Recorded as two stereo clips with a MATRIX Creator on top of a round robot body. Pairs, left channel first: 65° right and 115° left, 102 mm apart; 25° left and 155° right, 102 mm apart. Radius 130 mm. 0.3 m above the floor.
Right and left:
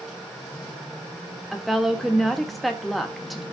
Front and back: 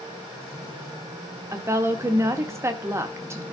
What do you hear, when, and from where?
1.5 s a woman speaking: 155° right, 1.5 m